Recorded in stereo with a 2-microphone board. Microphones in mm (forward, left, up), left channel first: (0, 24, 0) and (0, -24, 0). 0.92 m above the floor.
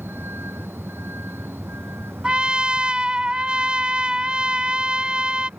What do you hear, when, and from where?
0.0 s a vehicle: 55° right (ahead or behind)
2.2 s a trumpet: 25° right (ahead or behind)